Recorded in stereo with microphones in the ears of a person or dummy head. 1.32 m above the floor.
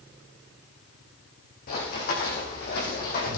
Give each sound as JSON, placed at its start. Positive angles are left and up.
{"t": 1.7, "sound": "running footsteps", "side_deg": 55, "distance_m": 5.0}